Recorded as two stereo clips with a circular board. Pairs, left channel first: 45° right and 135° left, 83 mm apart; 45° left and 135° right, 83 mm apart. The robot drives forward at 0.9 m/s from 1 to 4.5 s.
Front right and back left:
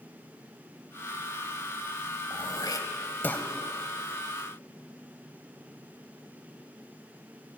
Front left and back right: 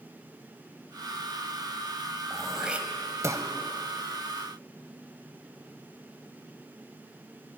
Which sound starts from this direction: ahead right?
Throat clearing, at 2.3 s.